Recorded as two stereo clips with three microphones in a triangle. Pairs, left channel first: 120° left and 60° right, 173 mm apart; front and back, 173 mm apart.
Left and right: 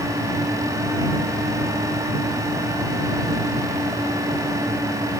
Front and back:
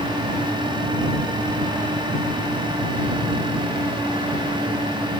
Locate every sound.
Only background noise.